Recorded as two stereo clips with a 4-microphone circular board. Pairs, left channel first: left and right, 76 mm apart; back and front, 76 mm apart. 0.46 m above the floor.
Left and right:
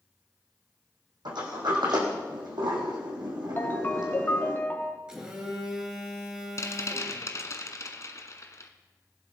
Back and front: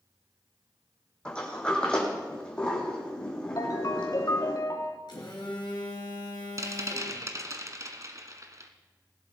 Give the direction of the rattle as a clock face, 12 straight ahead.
11 o'clock.